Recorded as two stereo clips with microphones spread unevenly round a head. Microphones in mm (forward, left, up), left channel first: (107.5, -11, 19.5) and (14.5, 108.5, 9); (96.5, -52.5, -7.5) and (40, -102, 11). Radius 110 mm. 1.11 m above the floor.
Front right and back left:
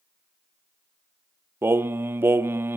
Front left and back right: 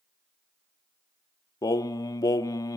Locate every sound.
1.6 s singing: 60° left, 0.6 m